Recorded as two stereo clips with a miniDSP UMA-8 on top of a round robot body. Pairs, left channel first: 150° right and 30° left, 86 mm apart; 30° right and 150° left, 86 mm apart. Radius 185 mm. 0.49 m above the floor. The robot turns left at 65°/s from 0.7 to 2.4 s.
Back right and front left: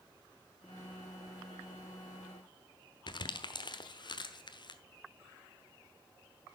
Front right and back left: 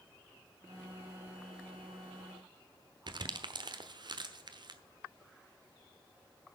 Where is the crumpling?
Straight behind, 1.1 m.